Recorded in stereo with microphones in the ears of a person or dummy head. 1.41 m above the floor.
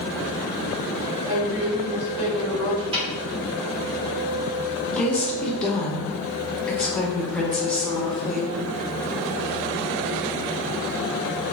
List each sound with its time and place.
1.3 s a woman speaking: 5° left (ahead or behind), 1.7 m
2.9 s a snare drum: 15° right (ahead or behind), 0.9 m
4.9 s a woman speaking: centre (ahead or behind), 0.6 m